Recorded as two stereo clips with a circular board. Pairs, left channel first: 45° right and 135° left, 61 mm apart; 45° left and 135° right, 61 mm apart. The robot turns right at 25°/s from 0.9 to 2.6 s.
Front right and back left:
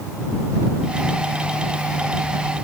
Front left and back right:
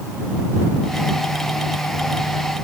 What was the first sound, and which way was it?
Only background noise.